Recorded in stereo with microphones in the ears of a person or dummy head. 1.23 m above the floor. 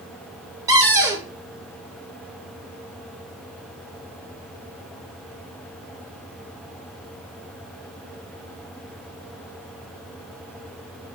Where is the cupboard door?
15° right (ahead or behind), 1.0 m.